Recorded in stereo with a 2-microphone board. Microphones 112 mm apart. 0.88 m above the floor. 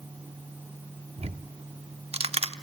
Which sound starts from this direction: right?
Ticking, at 1.2 s.